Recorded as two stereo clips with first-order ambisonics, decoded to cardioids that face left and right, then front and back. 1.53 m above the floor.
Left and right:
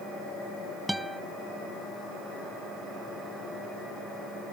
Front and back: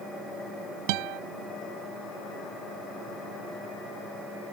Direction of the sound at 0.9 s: Straight behind.